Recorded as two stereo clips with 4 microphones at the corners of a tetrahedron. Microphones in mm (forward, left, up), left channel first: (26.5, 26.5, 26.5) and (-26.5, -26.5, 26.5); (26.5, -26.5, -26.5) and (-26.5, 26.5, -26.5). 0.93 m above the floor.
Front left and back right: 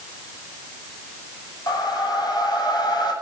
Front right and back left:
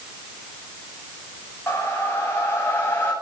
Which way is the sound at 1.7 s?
15° left.